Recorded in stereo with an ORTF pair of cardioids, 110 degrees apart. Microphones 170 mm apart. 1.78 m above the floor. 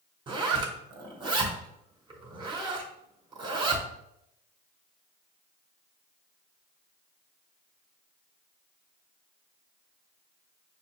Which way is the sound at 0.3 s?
25° right.